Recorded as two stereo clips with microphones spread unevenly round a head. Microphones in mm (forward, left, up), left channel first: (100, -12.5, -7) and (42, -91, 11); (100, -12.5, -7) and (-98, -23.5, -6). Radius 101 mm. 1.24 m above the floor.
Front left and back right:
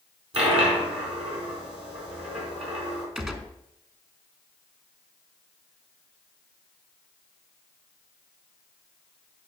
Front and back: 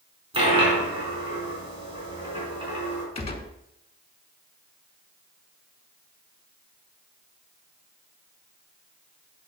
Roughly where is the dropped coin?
Right.